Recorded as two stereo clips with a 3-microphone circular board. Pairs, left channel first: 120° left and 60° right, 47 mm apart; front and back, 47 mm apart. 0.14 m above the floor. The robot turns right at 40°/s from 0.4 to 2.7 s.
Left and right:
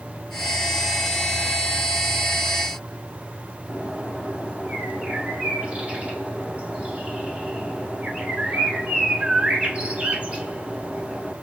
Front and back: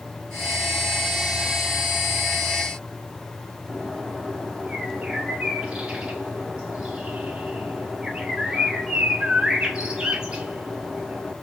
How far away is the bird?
About 0.9 m.